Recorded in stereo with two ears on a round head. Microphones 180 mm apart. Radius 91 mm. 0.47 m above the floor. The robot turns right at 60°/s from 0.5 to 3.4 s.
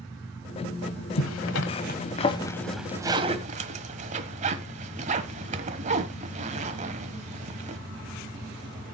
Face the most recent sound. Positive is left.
turn(degrees=-40)  # may be behind; listen again after turning